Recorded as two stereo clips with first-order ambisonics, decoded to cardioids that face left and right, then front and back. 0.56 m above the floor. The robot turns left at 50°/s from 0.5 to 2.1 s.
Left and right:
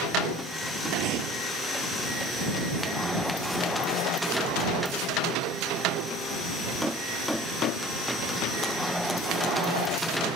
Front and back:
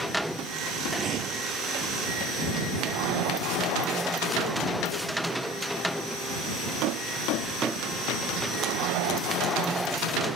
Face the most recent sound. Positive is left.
turn(degrees=-175)